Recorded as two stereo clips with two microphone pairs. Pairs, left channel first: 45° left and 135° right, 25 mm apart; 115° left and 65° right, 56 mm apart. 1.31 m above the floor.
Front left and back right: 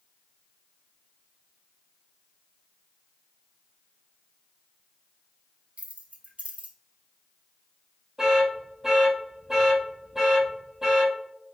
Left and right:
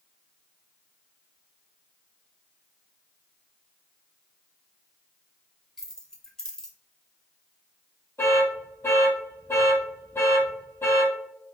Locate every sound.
5.8 s keys jangling: 165° right, 0.9 m
8.2 s an alarm: 150° left, 1.7 m